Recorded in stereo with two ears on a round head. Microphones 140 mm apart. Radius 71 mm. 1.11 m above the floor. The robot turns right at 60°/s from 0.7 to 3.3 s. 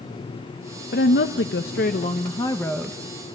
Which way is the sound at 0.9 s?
60° left.